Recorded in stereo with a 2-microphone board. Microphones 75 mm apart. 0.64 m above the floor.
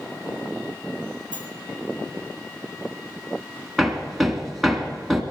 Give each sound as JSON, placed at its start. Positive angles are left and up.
{"t": 1.3, "sound": "a sliding door", "side_deg": 75, "distance_m": 4.5}
{"t": 3.8, "sound": "hammering", "side_deg": 0, "distance_m": 1.7}